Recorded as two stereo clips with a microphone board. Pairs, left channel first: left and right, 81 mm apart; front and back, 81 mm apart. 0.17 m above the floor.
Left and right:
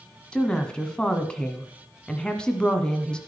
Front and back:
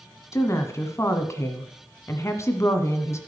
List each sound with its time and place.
0.3 s a woman speaking: 20° left, 1.5 m